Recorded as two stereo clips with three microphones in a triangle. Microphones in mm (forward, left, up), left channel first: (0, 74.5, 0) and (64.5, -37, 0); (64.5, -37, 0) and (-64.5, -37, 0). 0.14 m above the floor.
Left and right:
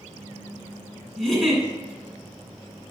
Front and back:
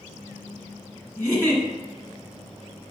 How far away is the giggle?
About 1.4 m.